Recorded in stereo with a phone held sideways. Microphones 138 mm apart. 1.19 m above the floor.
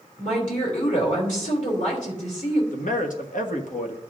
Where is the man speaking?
70° left (ahead or behind), 1.2 m.